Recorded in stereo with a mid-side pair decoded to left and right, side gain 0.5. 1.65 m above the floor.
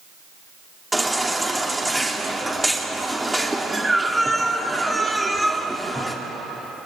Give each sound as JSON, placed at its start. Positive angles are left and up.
{"t": 0.9, "sound": "a baby crying", "azimuth_deg": -10, "distance_m": 2.5}